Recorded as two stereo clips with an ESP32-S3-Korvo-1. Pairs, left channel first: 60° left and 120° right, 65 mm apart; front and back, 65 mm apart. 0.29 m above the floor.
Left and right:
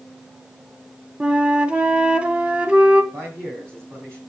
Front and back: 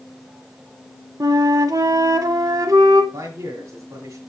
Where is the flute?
170° left, 0.7 m.